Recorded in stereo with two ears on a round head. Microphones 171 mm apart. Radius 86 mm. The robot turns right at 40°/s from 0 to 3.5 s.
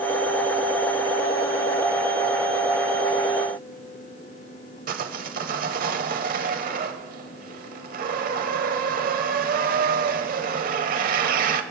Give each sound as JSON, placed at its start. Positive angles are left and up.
{"t": 4.9, "sound": "sawing", "side_deg": -45, "distance_m": 1.0}